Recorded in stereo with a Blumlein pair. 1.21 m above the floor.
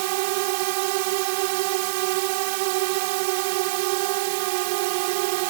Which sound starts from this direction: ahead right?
A drone, at 0.0 s.